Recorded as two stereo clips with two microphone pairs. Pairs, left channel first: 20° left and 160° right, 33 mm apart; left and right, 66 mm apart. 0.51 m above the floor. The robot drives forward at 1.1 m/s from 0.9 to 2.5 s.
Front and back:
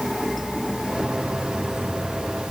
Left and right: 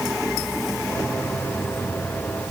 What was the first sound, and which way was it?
Only background noise.